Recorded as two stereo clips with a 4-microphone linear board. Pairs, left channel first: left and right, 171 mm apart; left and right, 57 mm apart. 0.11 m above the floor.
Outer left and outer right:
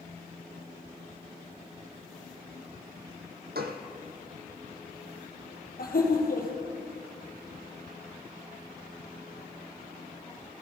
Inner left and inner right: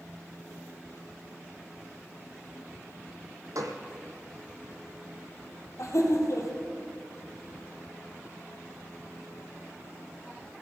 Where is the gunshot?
80° right, 1.4 m.